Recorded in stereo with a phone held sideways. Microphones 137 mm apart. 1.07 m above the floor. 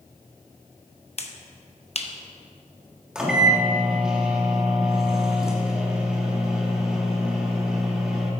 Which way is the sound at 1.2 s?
50° left (ahead or behind).